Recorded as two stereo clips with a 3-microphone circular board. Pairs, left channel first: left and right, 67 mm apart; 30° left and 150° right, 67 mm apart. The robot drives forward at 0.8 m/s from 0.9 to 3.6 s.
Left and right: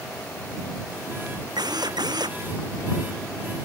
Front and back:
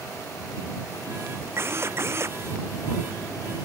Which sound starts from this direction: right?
A drill, at 1.6 s.